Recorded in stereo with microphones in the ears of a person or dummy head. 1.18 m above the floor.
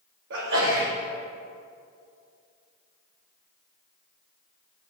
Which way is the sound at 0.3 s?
60° right (ahead or behind).